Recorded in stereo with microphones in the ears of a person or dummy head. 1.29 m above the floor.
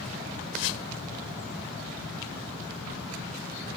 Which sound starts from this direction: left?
A whoosh, at 0.5 s.